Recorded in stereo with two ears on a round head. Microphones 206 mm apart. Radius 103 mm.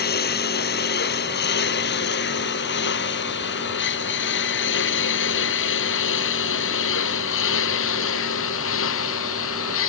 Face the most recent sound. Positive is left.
turn(degrees=70)  # may be behind; listen again after turning